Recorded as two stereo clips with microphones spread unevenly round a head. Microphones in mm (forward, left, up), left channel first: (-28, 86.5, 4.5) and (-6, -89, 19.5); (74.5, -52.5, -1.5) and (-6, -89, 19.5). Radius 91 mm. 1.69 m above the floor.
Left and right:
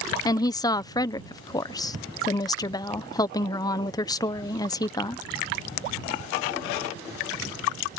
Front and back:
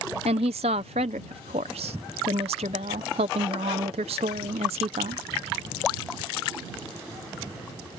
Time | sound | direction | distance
0.2 | a woman speaking | 170° left | ?